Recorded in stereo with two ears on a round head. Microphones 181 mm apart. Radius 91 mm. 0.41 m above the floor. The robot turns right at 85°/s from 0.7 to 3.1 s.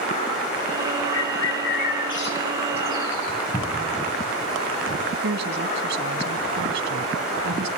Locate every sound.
1.1 s a bird: 70° left (ahead or behind), 7 m; by 3.4 s 60° right (ahead or behind), 7 m
3.5 s a cupboard door: 15° left (ahead or behind), 2.5 m
5.2 s a woman speaking: 60° right (ahead or behind), 3 m